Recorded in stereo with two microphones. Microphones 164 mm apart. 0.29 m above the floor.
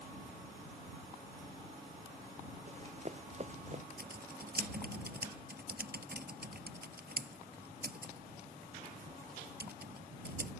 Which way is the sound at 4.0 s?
70° right (ahead or behind).